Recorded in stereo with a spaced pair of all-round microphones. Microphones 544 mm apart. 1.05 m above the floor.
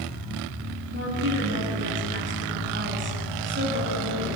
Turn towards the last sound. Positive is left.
turn(degrees=-20)  # may be behind; listen again after turning